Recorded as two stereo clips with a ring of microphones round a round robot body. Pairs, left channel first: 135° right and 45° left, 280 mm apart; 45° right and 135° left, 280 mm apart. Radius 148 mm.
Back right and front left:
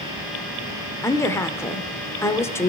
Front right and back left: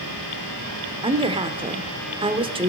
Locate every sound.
1.0 s a woman speaking: 160° left, 1.0 m